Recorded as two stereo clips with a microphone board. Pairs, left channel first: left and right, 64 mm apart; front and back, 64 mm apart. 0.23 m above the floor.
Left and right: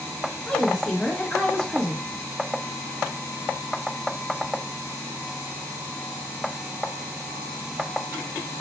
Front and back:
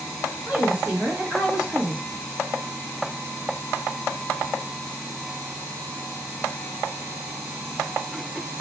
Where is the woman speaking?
140° left, 0.9 m.